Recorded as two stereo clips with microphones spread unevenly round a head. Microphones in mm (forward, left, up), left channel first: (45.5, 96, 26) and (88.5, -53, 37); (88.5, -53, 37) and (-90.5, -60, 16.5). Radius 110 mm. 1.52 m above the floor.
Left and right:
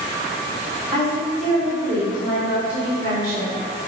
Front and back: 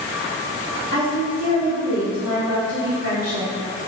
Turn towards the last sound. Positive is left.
turn(degrees=-160)